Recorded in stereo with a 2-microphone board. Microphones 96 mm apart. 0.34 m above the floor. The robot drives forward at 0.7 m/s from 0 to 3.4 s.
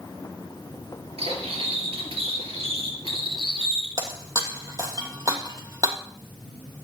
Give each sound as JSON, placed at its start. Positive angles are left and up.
{"t": 1.2, "sound": "cutlery clinking", "side_deg": -80, "distance_m": 4.0}
{"t": 4.0, "sound": "breaking glass", "side_deg": -35, "distance_m": 2.0}